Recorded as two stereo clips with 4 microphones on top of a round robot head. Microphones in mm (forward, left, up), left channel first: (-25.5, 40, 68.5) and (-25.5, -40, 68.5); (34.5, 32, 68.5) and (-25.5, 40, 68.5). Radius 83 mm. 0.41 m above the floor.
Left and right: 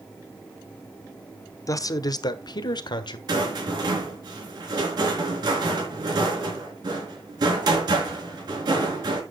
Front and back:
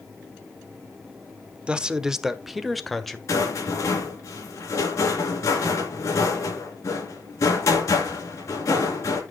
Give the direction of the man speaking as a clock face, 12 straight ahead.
8 o'clock.